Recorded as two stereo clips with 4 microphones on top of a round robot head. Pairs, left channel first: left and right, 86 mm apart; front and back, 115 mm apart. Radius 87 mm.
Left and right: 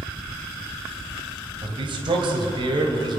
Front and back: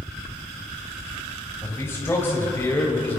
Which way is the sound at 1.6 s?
70° right.